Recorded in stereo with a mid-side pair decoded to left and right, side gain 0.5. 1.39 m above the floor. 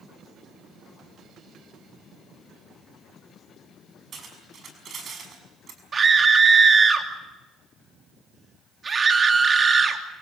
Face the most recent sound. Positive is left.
turn(degrees=-30)